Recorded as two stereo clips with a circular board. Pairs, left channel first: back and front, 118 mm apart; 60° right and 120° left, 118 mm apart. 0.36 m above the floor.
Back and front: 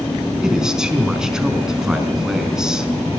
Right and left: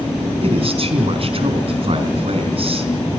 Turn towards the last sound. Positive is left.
turn(degrees=85)